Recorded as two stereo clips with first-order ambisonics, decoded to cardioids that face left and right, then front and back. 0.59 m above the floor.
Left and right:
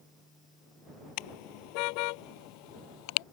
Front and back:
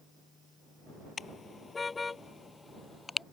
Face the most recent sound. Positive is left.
turn(degrees=80)